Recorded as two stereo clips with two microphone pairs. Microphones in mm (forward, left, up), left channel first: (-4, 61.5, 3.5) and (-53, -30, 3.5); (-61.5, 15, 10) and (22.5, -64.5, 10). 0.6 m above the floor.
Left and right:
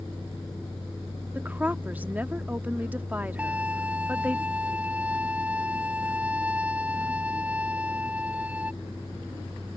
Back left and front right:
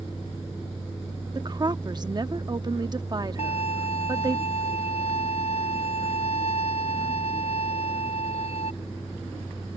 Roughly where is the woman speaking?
Ahead right.